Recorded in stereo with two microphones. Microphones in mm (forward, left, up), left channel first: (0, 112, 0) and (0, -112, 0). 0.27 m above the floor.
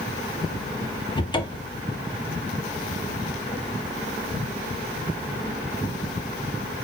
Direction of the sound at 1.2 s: 20° left (ahead or behind).